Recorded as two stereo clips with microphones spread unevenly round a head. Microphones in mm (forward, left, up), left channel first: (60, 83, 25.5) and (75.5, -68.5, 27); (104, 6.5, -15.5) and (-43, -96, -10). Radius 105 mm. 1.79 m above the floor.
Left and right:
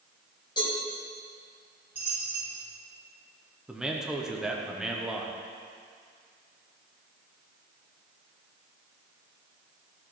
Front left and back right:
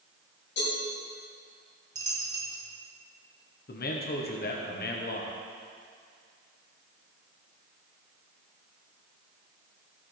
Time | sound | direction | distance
0.6 | a cowbell | 35° left | 3.5 m
1.9 | a dropped coin | 145° right | 1.2 m
3.7 | a man speaking | straight ahead | 1.2 m